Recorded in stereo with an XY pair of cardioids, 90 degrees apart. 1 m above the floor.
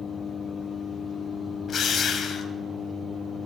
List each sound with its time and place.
1.7 s a drill: 55° left, 2.5 m